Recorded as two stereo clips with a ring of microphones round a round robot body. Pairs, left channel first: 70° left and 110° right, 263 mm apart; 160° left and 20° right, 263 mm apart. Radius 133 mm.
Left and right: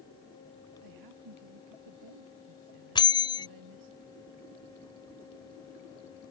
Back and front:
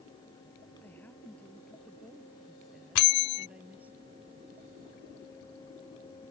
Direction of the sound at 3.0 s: 140° left.